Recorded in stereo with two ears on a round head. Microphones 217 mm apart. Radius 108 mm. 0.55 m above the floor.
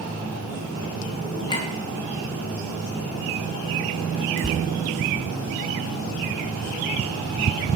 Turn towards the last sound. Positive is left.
turn(degrees=55)  # may be behind; listen again after turning